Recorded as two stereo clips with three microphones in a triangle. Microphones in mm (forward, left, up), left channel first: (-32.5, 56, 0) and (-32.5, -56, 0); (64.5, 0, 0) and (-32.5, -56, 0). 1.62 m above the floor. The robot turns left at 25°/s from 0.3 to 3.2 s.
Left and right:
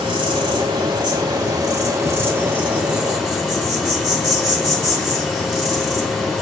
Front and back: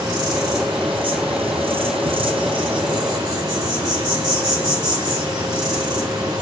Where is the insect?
110° right, 1.2 m; by 6.4 s straight behind, 1.2 m.